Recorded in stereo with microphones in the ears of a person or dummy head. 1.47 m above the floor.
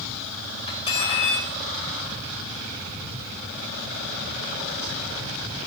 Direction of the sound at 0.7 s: 30° left (ahead or behind).